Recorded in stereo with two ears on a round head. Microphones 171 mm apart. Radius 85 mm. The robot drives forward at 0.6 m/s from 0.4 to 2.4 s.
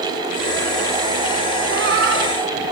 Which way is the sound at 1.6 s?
55° right (ahead or behind).